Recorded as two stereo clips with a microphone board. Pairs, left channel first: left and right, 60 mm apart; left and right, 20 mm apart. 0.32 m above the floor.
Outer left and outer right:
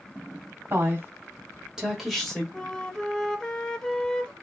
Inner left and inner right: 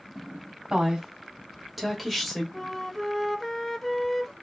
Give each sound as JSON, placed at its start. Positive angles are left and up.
{"t": 0.7, "sound": "a woman speaking", "side_deg": -40, "distance_m": 1.5}
{"t": 2.5, "sound": "a flute", "side_deg": 10, "distance_m": 0.5}